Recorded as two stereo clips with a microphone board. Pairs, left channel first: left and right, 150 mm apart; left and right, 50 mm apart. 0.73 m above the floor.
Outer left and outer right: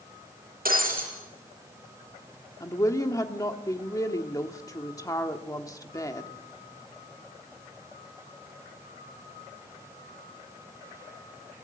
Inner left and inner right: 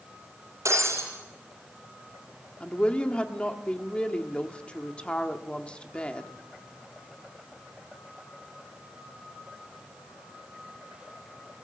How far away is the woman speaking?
About 1.4 m.